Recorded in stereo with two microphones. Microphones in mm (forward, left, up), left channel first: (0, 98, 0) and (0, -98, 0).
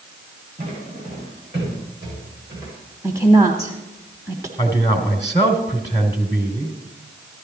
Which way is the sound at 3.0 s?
20° right (ahead or behind).